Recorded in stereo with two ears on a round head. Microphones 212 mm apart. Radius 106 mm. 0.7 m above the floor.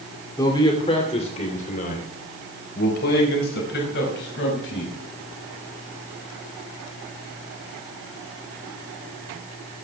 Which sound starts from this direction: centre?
A man speaking, at 0.4 s.